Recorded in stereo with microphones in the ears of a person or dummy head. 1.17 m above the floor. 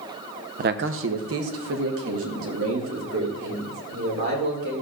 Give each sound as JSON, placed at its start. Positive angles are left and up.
{"t": 0.6, "sound": "a man speaking", "side_deg": -40, "distance_m": 0.5}